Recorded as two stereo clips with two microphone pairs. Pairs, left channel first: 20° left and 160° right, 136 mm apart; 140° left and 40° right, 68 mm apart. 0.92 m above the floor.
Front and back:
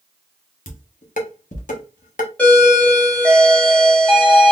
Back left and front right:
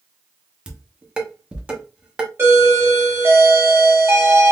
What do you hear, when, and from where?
0.7 s dishes clattering: 35° left, 0.9 m
2.4 s a doorbell: 50° right, 1.3 m